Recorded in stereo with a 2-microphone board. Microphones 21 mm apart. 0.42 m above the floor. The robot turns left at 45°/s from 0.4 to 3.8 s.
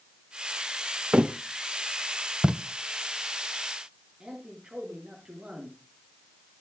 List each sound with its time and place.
1.1 s a thud: 60° right (ahead or behind), 0.8 m; by 1.4 s 65° right (ahead or behind), 0.8 m
2.4 s tape being pulled: 40° right (ahead or behind), 0.6 m; by 2.5 s 45° right (ahead or behind), 0.6 m
4.2 s a man speaking: 50° right (ahead or behind), 6.5 m